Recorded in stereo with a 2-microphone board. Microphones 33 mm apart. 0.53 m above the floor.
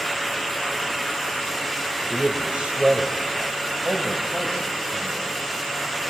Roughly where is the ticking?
No ticking in this recording.